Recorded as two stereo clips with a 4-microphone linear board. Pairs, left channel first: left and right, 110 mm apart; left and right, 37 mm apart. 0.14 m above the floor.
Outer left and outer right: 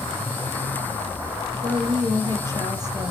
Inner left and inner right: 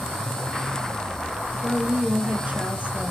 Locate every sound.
1.6 s a woman speaking: 35° right (ahead or behind), 2 m